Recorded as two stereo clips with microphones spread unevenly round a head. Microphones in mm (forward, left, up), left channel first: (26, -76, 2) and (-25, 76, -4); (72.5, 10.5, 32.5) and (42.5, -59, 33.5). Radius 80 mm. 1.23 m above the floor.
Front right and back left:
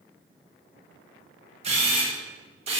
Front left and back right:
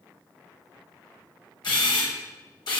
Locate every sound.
1.6 s a camera shutter: 55° left, 6.5 m